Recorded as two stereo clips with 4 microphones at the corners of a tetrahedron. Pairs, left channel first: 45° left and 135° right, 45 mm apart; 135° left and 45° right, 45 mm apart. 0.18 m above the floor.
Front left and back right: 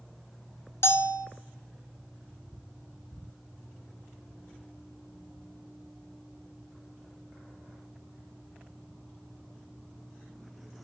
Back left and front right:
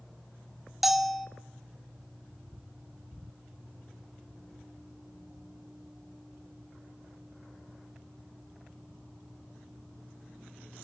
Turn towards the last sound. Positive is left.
turn(degrees=45)